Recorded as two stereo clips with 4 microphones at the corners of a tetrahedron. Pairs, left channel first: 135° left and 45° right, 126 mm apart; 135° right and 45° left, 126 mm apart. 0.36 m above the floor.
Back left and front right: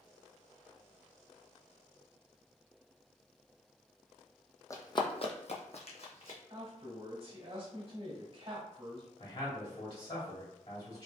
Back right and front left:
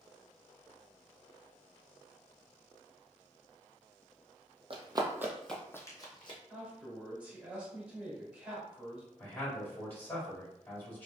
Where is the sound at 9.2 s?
155° left, 1.8 m.